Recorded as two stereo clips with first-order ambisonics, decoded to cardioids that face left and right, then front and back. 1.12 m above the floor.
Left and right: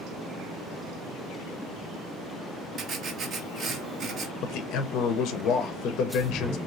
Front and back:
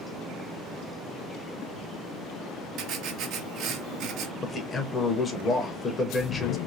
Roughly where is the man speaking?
Ahead left.